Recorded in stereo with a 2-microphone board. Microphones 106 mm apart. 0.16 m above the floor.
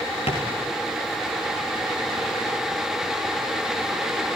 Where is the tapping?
65° left (ahead or behind), 6 m.